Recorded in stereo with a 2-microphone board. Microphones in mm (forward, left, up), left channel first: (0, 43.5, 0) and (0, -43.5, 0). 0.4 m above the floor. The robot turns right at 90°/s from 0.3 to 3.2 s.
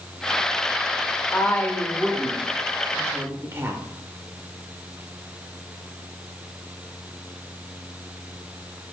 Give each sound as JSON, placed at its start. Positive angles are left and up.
{"t": 1.3, "sound": "a woman speaking", "azimuth_deg": 115, "distance_m": 0.9}